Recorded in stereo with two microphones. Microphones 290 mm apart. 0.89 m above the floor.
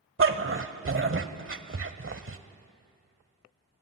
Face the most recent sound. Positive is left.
turn(degrees=-40)  # may be behind; listen again after turning